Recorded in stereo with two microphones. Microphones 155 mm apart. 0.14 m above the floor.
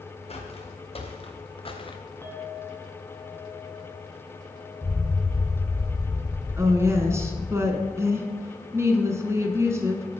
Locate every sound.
0.3 s footsteps: 40° left (ahead or behind), 2.5 m; by 2.0 s 35° left (ahead or behind), 1.1 m
2.2 s a clink: 15° left (ahead or behind), 0.9 m
4.8 s an explosion: 10° left (ahead or behind), 4 m
6.6 s a woman speaking: 20° right (ahead or behind), 1.1 m